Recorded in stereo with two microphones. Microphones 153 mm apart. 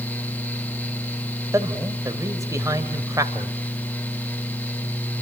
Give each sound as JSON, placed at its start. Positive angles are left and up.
{"t": 1.5, "sound": "a man speaking", "side_deg": -20, "distance_m": 2.0}